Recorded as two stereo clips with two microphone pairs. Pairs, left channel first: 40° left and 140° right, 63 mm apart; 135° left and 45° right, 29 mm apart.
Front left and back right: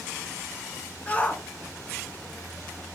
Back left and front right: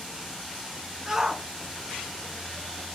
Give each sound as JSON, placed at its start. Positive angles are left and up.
{"t": 1.1, "sound": "a shout", "azimuth_deg": 5, "distance_m": 1.4}